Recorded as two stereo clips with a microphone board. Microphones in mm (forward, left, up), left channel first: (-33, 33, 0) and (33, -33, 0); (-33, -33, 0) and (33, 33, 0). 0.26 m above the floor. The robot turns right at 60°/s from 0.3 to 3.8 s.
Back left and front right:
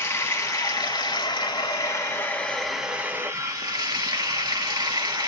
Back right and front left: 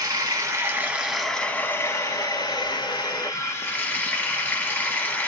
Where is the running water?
80° left, 0.7 m; by 5.3 s 70° right, 0.7 m.